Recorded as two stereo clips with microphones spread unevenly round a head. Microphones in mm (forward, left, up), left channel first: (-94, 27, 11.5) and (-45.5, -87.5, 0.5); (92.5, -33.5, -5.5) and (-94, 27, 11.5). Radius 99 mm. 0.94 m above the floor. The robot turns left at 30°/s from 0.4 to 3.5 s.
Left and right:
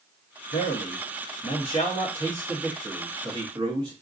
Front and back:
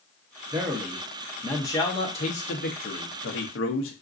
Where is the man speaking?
90° left, 0.7 m; by 3.9 s straight ahead, 0.7 m.